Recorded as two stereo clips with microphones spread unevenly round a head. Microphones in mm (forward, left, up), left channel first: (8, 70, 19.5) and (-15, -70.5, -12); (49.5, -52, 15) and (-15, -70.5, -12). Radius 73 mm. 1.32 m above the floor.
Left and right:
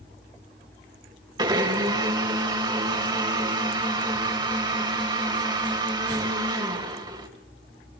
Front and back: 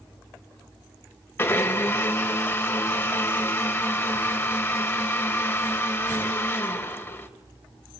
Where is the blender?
35° right, 3 m.